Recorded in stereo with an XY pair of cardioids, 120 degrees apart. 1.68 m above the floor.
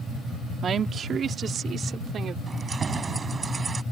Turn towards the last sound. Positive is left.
turn(degrees=-30)